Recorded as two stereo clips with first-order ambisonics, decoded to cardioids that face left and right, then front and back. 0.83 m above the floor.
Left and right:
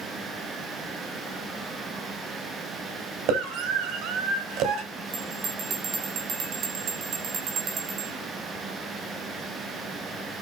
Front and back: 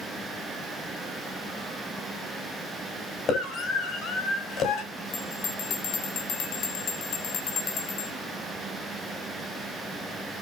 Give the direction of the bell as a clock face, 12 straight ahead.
1 o'clock.